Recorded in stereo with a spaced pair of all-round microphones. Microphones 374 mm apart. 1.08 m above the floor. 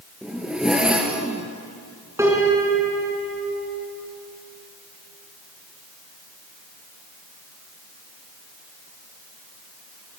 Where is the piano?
5° right (ahead or behind), 5 m.